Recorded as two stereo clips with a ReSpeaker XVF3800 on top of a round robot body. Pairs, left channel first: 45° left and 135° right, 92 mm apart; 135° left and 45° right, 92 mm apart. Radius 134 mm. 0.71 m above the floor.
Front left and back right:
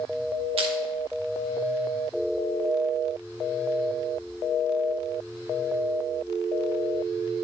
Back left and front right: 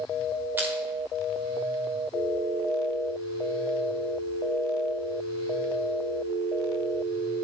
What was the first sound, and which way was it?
Crushing, 115° right.